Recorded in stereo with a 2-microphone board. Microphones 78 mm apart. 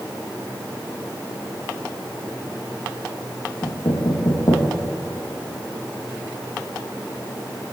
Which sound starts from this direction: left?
Knocking, at 3.6 s.